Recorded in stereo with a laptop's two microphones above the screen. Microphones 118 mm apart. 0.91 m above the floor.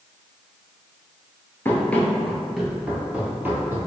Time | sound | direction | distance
1.6 | running footsteps | 20° left (ahead or behind) | 0.9 m